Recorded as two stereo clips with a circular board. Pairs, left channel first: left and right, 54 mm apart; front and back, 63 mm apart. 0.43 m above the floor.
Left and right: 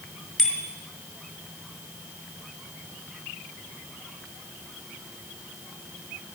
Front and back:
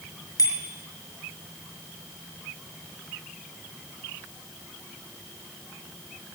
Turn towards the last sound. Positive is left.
turn(degrees=10)